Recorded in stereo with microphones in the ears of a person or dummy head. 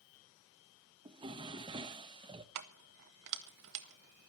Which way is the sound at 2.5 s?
55° right (ahead or behind).